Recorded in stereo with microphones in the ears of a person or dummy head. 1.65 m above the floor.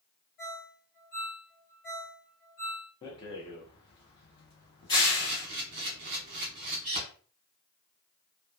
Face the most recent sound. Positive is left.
turn(degrees=-35)  # may be behind; listen again after turning